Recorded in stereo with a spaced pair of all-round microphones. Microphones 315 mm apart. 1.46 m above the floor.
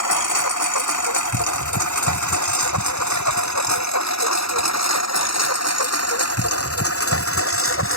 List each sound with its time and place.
0.0 s a lawn mower: 75° left (ahead or behind); by 8.0 s 40° left (ahead or behind)